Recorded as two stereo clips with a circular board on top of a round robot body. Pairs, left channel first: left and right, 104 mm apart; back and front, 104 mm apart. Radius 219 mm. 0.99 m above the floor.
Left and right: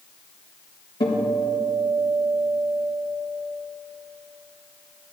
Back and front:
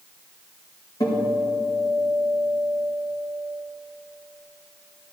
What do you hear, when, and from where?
1.0 s a guitar: 125° left, 4 m